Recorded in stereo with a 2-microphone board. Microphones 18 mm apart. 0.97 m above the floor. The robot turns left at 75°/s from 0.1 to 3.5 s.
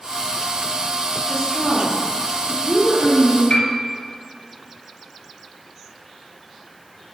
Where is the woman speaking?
120° left, 2.5 m; by 3.4 s 40° right, 2.5 m.